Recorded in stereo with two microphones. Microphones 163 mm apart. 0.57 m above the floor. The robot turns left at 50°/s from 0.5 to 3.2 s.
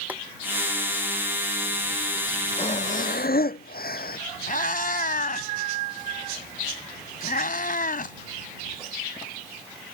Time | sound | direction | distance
0.1 | boiling | 10° right (ahead or behind) | ?
2.6 | breathing | 145° left | ?
4.5 | a cat meowing | 60° left (ahead or behind) | ?